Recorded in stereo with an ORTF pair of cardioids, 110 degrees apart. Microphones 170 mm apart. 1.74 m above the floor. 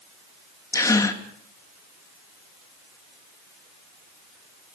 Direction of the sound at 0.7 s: 20° left.